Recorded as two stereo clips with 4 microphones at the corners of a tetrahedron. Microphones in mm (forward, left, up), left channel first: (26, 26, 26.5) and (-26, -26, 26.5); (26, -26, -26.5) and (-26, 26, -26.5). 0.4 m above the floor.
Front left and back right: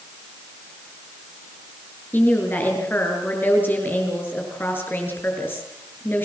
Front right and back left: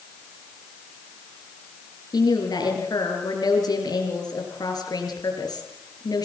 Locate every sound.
2.1 s a woman speaking: 15° right, 7 m